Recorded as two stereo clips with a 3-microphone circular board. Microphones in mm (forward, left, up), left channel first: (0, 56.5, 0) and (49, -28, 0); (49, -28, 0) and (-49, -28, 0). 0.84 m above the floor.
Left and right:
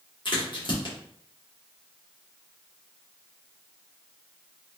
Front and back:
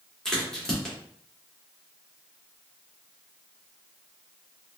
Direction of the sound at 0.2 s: 85° left.